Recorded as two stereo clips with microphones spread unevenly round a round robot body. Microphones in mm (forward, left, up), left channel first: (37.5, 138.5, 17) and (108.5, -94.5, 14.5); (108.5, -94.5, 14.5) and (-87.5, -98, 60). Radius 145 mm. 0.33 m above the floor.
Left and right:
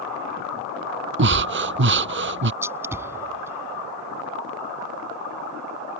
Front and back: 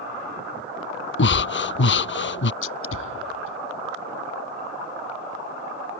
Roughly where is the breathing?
Ahead right.